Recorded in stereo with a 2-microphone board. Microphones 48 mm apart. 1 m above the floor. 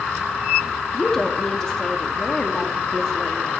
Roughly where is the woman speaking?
Centre.